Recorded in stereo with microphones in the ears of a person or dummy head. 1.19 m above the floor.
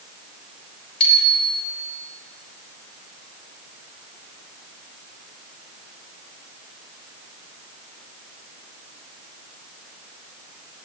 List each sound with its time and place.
1.0 s a bicycle bell: 30° left (ahead or behind), 7 m